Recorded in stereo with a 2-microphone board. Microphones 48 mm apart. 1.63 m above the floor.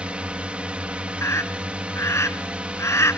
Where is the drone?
25° right (ahead or behind).